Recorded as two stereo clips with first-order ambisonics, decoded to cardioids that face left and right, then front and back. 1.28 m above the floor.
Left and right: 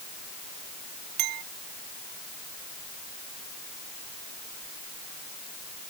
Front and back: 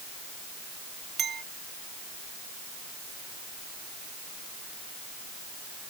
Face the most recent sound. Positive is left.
turn(degrees=-115)